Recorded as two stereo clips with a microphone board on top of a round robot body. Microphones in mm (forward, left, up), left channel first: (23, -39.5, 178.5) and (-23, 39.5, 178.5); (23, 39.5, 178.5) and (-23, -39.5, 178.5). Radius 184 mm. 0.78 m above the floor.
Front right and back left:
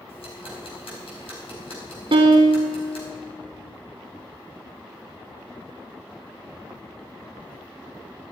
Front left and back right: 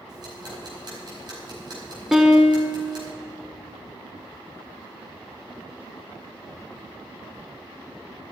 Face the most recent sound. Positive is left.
turn(degrees=155)